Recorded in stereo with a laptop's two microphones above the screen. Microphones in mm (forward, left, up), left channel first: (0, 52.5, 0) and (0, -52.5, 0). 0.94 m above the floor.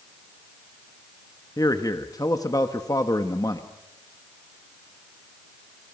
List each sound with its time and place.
1.6 s a man speaking: 35° left (ahead or behind), 1.1 m